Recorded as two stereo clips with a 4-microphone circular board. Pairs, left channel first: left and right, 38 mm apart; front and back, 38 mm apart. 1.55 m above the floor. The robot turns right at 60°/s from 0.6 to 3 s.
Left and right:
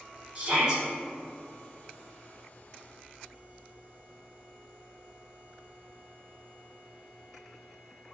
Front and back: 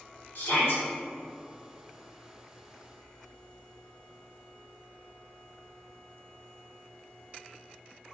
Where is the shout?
30° right, 1.4 m; by 0.8 s 15° right, 1.4 m.